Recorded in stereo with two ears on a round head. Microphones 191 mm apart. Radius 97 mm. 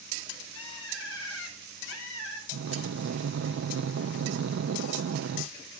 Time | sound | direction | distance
0.6 | a bird | 65° left (ahead or behind) | 4.5 m
2.5 | breathing | 55° right (ahead or behind) | 0.5 m